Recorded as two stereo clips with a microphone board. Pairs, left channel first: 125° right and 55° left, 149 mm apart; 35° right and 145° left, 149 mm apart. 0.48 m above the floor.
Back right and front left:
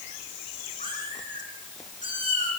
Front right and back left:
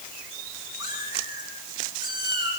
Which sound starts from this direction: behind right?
A cat meowing, at 0.8 s.